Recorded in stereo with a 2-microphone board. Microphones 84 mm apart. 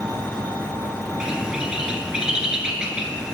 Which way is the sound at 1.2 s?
10° right (ahead or behind).